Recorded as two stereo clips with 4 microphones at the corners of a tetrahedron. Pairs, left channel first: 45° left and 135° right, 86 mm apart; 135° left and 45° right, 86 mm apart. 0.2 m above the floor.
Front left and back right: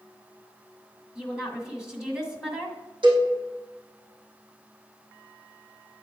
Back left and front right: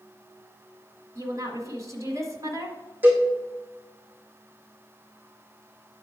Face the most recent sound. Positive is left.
turn(degrees=-115)